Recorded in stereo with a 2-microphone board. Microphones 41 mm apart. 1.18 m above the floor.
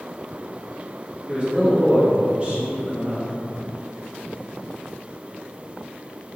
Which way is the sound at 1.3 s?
30° right (ahead or behind).